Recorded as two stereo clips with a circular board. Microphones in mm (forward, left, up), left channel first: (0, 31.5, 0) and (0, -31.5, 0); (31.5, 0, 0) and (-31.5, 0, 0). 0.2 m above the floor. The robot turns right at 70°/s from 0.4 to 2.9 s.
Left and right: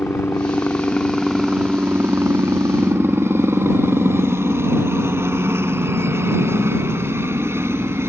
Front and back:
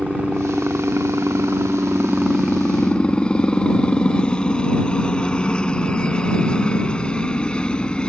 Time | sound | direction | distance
0.0 | a helicopter | 115° left | ?